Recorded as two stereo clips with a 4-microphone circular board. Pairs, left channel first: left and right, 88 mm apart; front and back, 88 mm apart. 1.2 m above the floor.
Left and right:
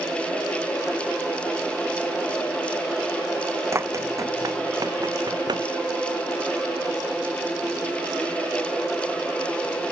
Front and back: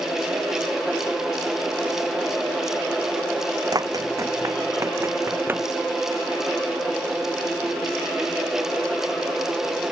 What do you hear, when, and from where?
3.7 s running footsteps: 145° right; by 5.7 s 115° right